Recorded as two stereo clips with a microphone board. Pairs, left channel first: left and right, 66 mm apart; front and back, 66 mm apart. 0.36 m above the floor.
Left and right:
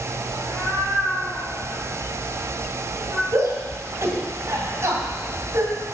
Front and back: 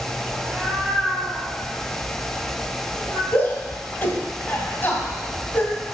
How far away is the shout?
About 1.9 m.